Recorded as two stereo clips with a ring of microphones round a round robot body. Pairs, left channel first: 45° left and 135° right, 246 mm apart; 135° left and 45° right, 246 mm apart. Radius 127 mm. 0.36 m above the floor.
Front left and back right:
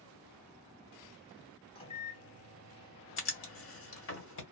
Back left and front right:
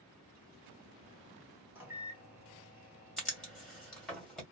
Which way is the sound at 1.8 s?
25° left.